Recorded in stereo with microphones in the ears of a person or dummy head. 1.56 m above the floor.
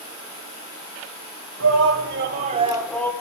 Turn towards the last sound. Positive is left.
turn(degrees=15)  # may be behind; listen again after turning